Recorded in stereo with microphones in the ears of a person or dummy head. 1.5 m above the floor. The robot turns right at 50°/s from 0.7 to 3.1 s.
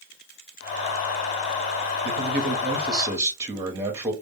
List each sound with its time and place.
2.0 s a man speaking: 60° right, 0.9 m; by 4.1 s 10° right, 0.9 m